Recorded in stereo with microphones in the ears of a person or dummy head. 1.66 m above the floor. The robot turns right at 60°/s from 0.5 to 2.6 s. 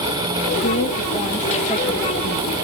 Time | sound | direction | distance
0.6 | a woman speaking | 120° left | 2 m